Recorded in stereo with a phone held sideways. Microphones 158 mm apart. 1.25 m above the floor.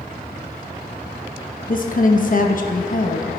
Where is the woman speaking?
55° left (ahead or behind), 1.1 m.